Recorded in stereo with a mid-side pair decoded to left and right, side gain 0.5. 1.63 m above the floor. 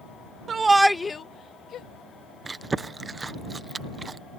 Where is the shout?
45° right; by 1.9 s 65° left.